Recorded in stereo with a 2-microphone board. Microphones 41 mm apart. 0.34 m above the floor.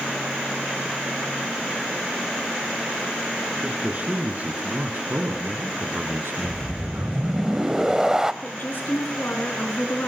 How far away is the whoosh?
About 0.9 m.